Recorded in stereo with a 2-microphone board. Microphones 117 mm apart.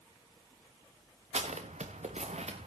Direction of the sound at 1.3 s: 70° right (ahead or behind).